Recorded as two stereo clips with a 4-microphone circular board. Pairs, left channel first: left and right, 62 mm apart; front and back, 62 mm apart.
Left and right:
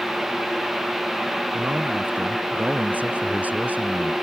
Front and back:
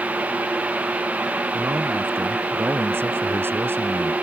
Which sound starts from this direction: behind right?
A man speaking, at 1.5 s.